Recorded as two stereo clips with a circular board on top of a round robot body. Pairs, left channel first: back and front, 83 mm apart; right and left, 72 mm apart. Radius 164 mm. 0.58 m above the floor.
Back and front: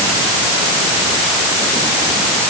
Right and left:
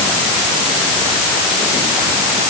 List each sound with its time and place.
Only background noise.